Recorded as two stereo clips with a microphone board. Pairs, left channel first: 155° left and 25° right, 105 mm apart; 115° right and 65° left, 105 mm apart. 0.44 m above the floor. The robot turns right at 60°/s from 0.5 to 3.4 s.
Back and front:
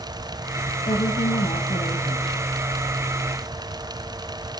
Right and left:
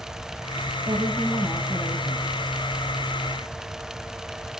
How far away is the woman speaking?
About 2.5 m.